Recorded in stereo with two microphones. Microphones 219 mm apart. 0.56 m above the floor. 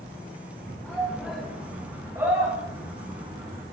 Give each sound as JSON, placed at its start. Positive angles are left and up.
{"t": 0.8, "sound": "a shout", "side_deg": 5, "distance_m": 4.0}